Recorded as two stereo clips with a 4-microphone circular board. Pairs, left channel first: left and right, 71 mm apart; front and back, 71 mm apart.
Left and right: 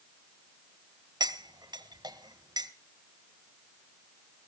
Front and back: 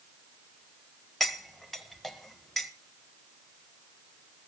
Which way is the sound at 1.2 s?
85° right.